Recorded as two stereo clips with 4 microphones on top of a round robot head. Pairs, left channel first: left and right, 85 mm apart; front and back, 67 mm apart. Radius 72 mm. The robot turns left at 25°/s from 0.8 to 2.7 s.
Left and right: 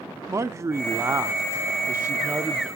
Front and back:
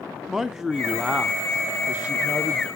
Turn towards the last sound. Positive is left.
turn(degrees=-150)